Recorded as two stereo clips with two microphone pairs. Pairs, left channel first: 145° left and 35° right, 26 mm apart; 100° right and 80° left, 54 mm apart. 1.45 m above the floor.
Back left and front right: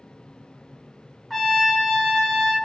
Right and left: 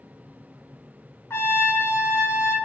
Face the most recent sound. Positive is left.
turn(degrees=-125)